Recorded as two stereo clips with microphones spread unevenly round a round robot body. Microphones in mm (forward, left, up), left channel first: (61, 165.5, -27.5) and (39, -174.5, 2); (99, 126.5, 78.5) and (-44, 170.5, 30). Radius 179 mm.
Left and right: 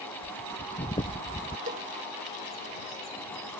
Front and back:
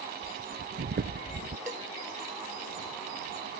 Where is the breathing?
165° left.